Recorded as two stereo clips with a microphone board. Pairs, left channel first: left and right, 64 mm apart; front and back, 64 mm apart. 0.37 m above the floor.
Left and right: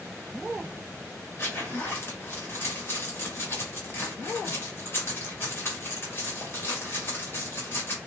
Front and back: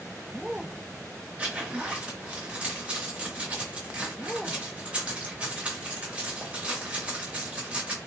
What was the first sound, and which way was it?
A zipper, 120° left.